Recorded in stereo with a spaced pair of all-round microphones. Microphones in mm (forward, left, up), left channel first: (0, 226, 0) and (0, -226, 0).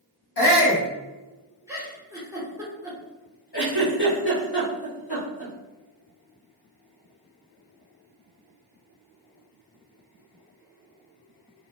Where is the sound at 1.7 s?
5° right (ahead or behind), 1.0 m.